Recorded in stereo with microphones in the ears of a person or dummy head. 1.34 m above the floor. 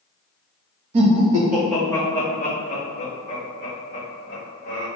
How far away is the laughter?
About 0.7 m.